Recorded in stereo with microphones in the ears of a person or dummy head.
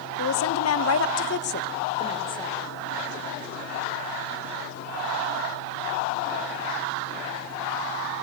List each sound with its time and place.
0.2 s a woman speaking: 85° left, 1.1 m; by 2.6 s 15° left (ahead or behind), 1.0 m